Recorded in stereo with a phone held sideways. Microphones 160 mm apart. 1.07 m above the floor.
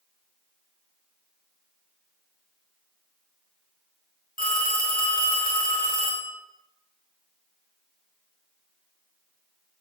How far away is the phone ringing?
About 0.7 m.